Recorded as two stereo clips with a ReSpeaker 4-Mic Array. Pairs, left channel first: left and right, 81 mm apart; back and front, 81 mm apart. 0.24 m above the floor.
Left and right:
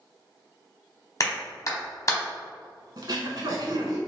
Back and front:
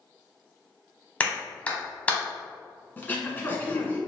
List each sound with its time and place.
1.2 s a clap: 115° left, 1.0 m
3.0 s throat clearing: 115° right, 0.7 m